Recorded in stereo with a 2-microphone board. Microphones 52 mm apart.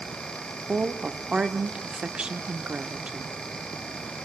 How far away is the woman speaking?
About 1.2 m.